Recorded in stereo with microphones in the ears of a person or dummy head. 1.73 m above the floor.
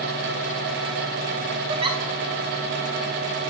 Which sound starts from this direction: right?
A giggle, at 1.7 s.